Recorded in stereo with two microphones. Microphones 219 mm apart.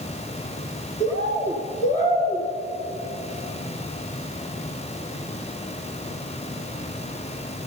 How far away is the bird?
About 1.5 m.